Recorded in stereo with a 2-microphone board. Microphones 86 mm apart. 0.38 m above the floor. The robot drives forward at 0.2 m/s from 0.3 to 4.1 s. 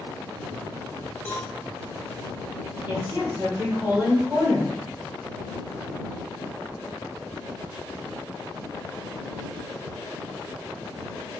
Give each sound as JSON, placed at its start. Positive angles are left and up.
{"t": 1.2, "sound": "a cowbell", "side_deg": 15, "distance_m": 1.1}
{"t": 2.9, "sound": "a woman speaking", "side_deg": -20, "distance_m": 1.1}